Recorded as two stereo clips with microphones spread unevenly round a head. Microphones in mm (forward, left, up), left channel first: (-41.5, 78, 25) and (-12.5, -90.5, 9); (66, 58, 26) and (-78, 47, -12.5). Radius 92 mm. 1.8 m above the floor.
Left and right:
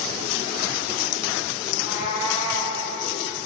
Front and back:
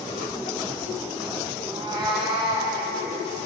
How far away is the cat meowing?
About 3.5 m.